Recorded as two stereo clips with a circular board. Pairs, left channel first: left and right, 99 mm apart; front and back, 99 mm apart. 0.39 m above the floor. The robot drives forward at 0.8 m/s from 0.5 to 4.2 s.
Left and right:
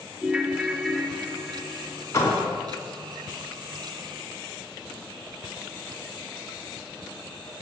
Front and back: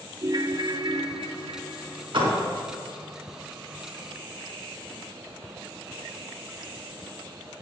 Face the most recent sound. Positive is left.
turn(degrees=160)